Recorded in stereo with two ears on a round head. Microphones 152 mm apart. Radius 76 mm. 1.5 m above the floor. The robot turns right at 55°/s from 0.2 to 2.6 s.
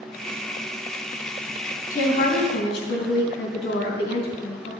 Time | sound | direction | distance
1.9 | a woman speaking | 20° left | 3 m